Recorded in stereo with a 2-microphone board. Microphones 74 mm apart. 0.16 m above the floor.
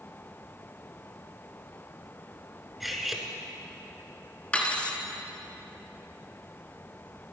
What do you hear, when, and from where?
2.8 s cutlery clinking: centre (ahead or behind), 1.3 m
4.5 s cutlery clinking: 20° left (ahead or behind), 1.3 m